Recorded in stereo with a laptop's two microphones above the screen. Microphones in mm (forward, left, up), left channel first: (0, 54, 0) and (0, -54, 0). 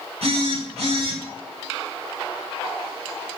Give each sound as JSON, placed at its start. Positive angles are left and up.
{"t": 0.2, "sound": "a phone buzzing", "side_deg": -75, "distance_m": 3.0}